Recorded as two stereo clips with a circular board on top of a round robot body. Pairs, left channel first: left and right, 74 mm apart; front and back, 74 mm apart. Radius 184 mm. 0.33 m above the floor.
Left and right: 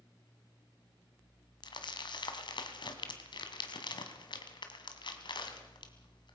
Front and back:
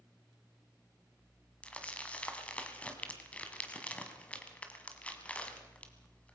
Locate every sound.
1.6 s crumpling: 75° left, 1.8 m